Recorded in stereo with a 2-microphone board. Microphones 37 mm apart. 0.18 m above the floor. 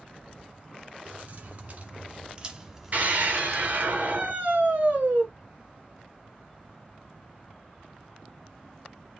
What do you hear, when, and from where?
1.1 s keys jangling: 55° right (ahead or behind), 1.9 m; by 3.9 s 35° left (ahead or behind), 1.2 m
2.9 s a scream: 50° right (ahead or behind), 3 m